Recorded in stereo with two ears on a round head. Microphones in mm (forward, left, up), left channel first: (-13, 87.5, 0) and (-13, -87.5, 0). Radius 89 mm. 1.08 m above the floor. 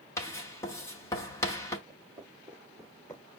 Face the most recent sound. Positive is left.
turn(degrees=10)  # may be behind; listen again after turning